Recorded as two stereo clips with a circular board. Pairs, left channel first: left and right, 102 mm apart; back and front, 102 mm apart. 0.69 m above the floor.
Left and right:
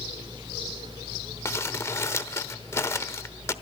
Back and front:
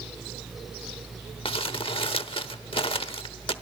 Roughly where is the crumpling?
Behind left.